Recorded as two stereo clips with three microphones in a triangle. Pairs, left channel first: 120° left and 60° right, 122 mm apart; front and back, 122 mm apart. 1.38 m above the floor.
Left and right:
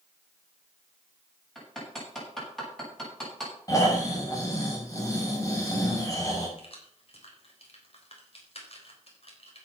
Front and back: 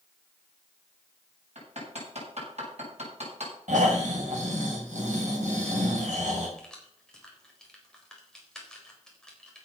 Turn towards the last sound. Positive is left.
turn(degrees=85)